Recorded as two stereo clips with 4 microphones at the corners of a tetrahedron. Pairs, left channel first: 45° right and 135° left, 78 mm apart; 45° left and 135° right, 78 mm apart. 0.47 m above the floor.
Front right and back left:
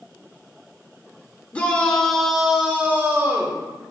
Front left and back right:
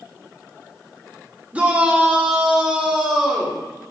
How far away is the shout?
About 1.2 m.